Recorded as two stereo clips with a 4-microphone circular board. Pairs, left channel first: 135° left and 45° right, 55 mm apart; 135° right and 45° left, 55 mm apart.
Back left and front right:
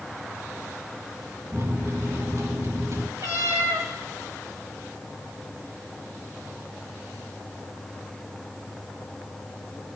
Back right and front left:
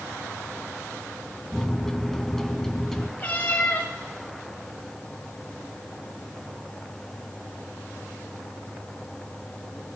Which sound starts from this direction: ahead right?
A microwave, at 1.5 s.